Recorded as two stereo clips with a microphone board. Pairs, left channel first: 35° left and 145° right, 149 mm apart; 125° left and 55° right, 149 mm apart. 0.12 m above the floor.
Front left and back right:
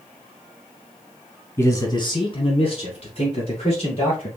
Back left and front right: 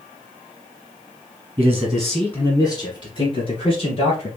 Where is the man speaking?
20° right, 1.2 m; by 4.3 s 80° left, 3.5 m.